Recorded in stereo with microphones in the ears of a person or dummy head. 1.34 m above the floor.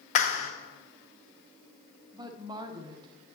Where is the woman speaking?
15° right (ahead or behind), 0.5 m.